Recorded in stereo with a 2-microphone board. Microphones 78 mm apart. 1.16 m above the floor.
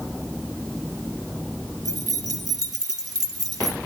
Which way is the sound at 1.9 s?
55° right (ahead or behind).